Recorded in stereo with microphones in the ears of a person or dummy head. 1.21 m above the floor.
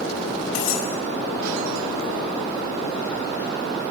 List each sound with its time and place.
0.6 s cutlery clinking: 75° left (ahead or behind), 5.5 m